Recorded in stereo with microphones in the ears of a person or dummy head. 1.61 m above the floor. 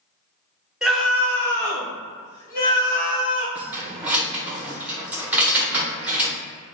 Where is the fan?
No fan in this recording.